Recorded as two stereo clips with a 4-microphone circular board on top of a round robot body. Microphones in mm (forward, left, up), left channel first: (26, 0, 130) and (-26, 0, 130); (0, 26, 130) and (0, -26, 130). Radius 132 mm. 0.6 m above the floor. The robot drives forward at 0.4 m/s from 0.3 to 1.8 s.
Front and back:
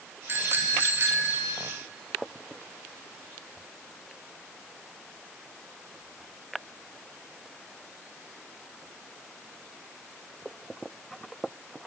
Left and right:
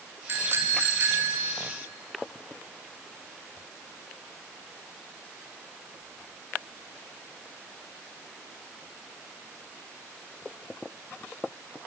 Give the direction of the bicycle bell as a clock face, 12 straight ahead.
4 o'clock.